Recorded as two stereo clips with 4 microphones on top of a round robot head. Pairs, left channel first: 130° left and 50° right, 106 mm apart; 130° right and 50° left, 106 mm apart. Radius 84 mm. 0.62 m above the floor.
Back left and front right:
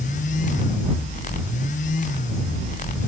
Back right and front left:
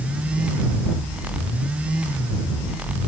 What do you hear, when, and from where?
Only background noise.